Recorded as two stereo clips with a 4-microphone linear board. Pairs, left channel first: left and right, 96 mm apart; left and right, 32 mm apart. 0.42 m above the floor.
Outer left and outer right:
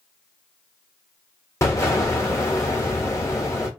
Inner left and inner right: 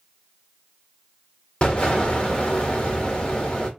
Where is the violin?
I don't hear a violin.